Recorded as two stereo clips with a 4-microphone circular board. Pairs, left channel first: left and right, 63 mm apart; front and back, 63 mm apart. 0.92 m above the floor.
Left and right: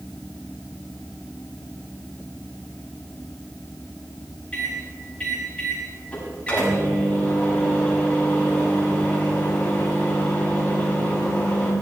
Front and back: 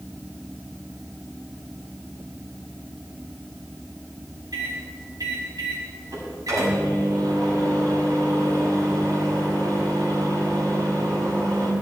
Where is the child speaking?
I don't hear a child speaking.